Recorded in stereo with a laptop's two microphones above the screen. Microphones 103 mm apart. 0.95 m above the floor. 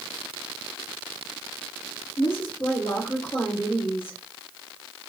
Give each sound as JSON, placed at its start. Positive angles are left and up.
{"t": 2.2, "sound": "a woman speaking", "side_deg": 60, "distance_m": 1.6}